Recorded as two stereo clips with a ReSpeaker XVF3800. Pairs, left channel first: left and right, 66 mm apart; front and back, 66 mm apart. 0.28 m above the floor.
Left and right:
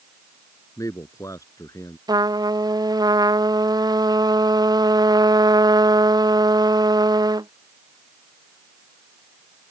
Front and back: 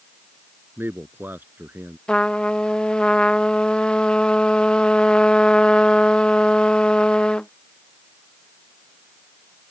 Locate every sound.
0.8 s a man speaking: 120° left
2.1 s a trumpet: 80° right